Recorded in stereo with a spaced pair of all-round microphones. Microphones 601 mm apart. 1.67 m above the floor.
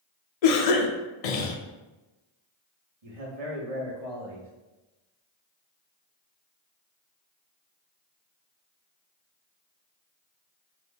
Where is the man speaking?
70° right (ahead or behind), 0.9 m.